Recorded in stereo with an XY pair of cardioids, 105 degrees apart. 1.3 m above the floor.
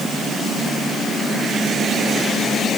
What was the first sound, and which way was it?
Only background noise.